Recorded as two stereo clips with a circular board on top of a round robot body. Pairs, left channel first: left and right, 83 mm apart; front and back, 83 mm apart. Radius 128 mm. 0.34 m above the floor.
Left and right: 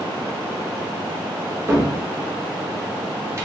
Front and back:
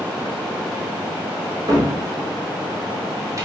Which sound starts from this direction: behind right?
A cupboard door, at 1.7 s.